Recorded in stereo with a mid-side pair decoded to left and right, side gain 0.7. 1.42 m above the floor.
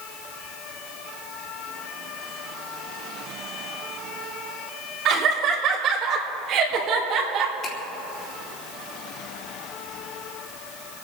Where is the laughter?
45° right, 5 m; by 7.5 s 50° right, 3 m.